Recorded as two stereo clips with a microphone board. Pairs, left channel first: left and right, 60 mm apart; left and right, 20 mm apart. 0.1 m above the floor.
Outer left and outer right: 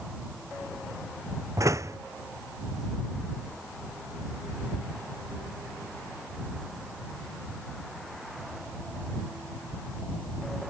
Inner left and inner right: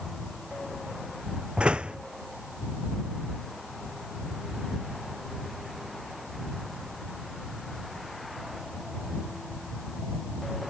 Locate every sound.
1.6 s a door slam: 65° right (ahead or behind)